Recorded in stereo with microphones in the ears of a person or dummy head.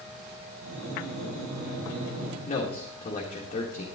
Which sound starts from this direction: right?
Breathing, at 0.6 s.